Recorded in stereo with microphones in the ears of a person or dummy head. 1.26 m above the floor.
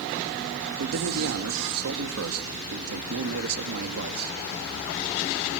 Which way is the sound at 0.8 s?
85° right.